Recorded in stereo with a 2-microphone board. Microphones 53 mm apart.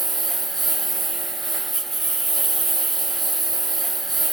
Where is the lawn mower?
5° left (ahead or behind).